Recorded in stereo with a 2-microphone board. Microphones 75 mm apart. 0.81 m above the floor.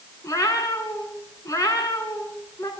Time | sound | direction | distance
0.2 | a cat meowing | 45° left (ahead or behind) | 4 m